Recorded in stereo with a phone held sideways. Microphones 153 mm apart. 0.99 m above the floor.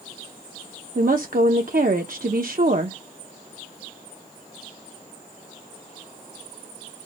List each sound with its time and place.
0.9 s a woman speaking: 65° right (ahead or behind), 0.6 m